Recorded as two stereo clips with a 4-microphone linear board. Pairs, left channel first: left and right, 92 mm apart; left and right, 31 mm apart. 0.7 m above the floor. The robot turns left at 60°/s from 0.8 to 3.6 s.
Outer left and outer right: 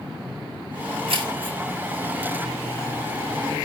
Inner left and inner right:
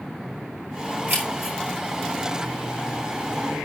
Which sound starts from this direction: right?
Keys jangling, at 1.1 s.